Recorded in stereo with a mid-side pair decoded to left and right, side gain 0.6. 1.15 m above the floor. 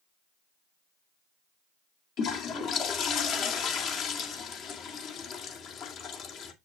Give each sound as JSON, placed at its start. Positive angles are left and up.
{"t": 2.2, "sound": "a toilet flushing", "azimuth_deg": 55, "distance_m": 2.0}